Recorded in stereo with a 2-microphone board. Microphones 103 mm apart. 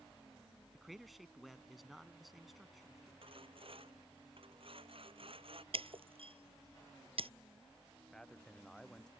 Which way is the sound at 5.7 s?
65° right (ahead or behind).